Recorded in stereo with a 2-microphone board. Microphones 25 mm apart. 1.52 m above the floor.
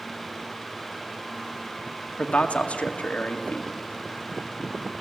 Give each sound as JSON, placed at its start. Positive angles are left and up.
{"t": 2.2, "sound": "a man speaking", "side_deg": 70, "distance_m": 1.8}